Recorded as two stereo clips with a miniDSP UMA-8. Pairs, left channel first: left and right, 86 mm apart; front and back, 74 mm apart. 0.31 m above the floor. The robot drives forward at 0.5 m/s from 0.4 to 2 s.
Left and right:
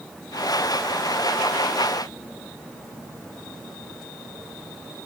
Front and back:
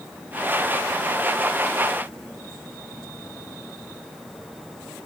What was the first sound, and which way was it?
Only background noise.